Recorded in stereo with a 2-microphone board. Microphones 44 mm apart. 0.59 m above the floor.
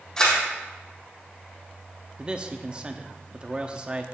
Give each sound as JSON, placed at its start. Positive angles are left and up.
{"t": 0.2, "sound": "a camera shutter", "side_deg": 15, "distance_m": 4.0}
{"t": 2.2, "sound": "a man speaking", "side_deg": -25, "distance_m": 0.8}